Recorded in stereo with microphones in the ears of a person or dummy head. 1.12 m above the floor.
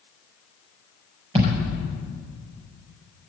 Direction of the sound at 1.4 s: 30° right (ahead or behind).